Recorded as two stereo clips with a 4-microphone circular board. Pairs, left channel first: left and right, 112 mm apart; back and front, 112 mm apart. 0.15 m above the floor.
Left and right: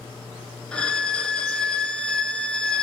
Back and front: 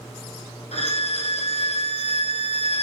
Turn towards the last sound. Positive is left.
turn(degrees=170)